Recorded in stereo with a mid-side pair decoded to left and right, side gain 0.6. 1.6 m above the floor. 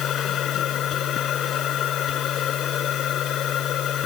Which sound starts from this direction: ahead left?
A machine running, at 0.0 s.